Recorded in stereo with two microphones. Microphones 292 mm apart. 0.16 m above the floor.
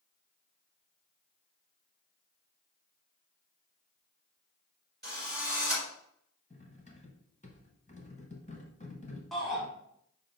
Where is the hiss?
I don't hear a hiss.